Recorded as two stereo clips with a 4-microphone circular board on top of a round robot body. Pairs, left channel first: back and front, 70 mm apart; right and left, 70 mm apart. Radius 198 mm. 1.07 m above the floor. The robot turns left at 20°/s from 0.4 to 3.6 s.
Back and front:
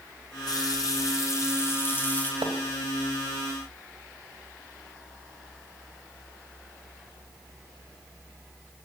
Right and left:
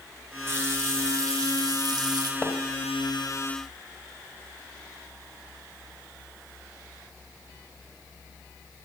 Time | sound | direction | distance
0.5 | a running tap | 150° left | 1.4 m
2.4 | a splash | 15° right | 1.4 m